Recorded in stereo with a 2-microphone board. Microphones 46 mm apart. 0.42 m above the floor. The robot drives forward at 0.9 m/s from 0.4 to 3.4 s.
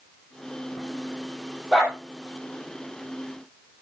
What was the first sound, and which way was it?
A dog barking, 20° right (ahead or behind).